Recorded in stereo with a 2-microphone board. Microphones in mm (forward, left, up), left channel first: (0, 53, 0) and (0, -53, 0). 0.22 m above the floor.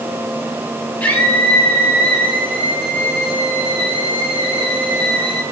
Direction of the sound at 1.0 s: 20° left (ahead or behind).